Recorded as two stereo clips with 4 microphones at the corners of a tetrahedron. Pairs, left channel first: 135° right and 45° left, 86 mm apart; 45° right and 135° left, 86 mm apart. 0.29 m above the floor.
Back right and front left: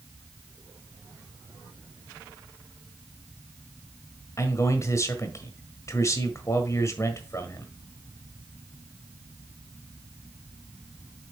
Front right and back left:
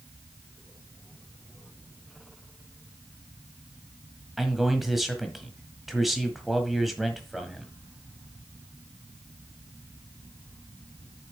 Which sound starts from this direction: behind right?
A man speaking, at 4.4 s.